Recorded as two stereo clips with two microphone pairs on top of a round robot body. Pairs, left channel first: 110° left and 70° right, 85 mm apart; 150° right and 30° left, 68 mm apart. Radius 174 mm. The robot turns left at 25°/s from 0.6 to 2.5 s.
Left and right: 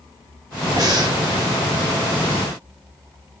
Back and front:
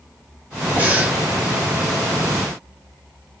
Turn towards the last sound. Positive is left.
turn(degrees=-75)